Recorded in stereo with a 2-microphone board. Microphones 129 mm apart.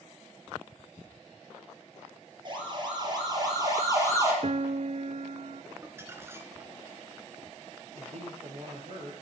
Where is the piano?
60° right (ahead or behind), 0.5 m.